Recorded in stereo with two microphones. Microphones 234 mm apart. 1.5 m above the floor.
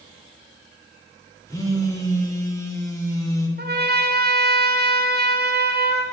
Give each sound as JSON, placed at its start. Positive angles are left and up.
{"t": 1.5, "sound": "a phone buzzing", "side_deg": 15, "distance_m": 1.0}
{"t": 3.6, "sound": "a trumpet", "side_deg": -45, "distance_m": 0.7}